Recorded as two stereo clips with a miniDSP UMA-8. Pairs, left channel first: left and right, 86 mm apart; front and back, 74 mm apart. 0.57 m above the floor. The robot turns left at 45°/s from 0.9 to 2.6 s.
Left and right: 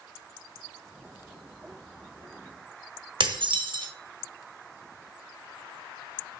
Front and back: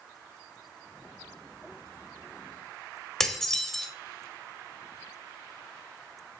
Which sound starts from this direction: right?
Dishes clattering, at 3.2 s.